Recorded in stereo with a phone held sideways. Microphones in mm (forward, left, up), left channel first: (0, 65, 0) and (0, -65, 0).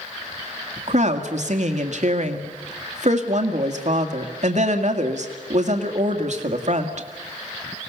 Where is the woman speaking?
60° right (ahead or behind), 2.0 m.